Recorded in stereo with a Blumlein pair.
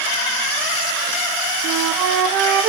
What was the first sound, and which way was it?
A flute, 40° right.